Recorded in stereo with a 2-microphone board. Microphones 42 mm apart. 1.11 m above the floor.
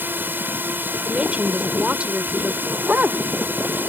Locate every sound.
0.0 s a drone: 55° right (ahead or behind)
1.0 s a woman speaking: 30° right (ahead or behind)
2.7 s a dog barking: 35° right (ahead or behind)